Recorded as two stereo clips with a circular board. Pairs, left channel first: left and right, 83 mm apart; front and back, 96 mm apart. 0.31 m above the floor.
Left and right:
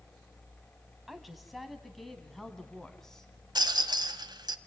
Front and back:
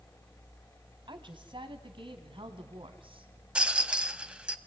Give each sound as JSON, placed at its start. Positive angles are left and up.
{"t": 1.1, "sound": "a woman speaking", "azimuth_deg": 180, "distance_m": 2.5}
{"t": 3.5, "sound": "a rattle", "azimuth_deg": -105, "distance_m": 1.2}